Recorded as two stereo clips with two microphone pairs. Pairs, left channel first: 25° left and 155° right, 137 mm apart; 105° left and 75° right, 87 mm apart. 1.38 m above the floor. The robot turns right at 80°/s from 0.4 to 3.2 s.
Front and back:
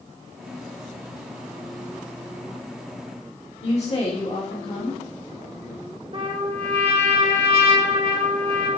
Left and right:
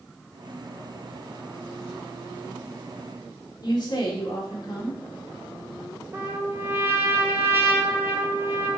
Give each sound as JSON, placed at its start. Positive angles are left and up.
{"t": 3.6, "sound": "a woman speaking", "azimuth_deg": 65, "distance_m": 2.5}
{"t": 6.1, "sound": "a trumpet", "azimuth_deg": -130, "distance_m": 1.3}